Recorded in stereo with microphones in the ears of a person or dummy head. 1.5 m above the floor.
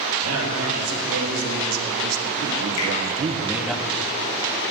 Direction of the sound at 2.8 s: 75° left (ahead or behind).